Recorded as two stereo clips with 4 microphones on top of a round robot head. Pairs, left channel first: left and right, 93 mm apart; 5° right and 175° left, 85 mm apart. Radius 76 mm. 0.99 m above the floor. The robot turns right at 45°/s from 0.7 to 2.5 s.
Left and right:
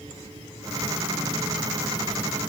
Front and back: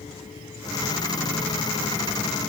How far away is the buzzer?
No buzzer in this recording.